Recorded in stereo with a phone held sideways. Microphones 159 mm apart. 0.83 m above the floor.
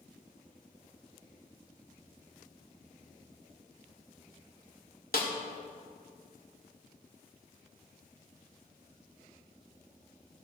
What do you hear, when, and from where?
5.1 s a snare drum: 75° left (ahead or behind), 1.6 m